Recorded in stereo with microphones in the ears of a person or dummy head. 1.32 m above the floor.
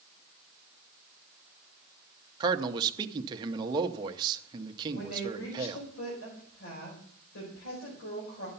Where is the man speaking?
25° right (ahead or behind), 0.8 m.